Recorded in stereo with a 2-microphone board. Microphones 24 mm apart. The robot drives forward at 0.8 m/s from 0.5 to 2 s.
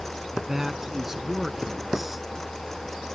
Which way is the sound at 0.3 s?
15° right (ahead or behind).